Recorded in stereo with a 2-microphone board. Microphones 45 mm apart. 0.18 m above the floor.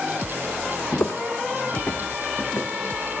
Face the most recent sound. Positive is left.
turn(degrees=65)  # may be behind; listen again after turning